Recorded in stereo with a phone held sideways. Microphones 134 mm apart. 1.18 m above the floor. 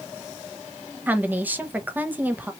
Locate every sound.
1.1 s a woman speaking: 15° right (ahead or behind), 0.8 m